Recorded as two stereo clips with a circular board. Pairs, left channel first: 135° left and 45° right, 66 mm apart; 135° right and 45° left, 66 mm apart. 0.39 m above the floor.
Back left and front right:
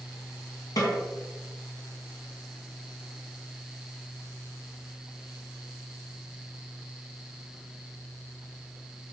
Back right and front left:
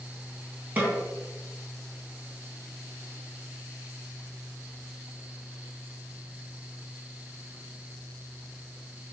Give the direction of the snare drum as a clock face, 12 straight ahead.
8 o'clock.